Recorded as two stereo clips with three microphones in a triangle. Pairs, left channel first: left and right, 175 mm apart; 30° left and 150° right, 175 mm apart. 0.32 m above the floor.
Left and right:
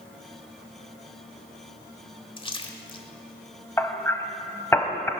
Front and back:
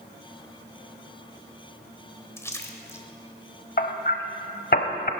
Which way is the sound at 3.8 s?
20° left.